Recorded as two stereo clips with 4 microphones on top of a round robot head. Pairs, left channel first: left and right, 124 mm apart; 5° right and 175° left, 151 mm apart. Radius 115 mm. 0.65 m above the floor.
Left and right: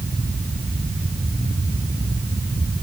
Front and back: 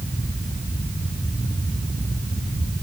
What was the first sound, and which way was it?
Only background noise.